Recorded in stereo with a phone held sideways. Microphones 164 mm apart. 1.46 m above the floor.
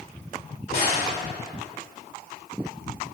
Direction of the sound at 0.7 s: 65° left (ahead or behind).